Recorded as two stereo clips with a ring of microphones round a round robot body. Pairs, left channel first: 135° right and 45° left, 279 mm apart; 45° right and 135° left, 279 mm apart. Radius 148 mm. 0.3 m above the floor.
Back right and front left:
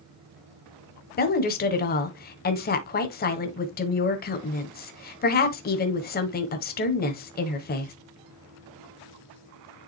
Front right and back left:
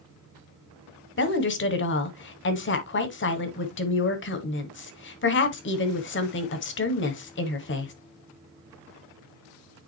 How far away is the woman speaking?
About 1.6 m.